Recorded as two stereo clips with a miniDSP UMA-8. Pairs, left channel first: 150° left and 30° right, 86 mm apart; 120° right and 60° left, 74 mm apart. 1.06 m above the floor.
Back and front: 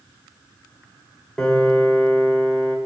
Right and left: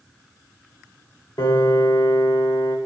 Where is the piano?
125° right, 1.6 m.